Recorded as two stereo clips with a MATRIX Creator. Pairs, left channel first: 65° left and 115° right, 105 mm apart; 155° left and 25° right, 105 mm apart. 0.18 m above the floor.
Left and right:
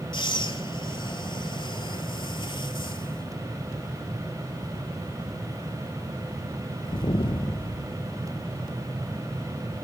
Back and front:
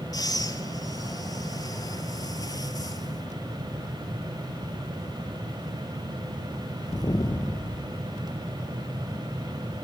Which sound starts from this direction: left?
Breathing, at 0.1 s.